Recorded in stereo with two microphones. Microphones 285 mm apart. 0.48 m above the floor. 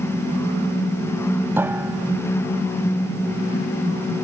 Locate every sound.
1.6 s a piano: 5° right (ahead or behind)